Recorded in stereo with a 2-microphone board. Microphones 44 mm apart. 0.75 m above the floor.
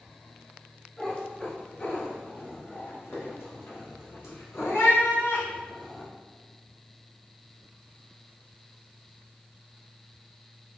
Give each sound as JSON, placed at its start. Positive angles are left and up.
{"t": 1.0, "sound": "a cat meowing", "side_deg": 25, "distance_m": 1.8}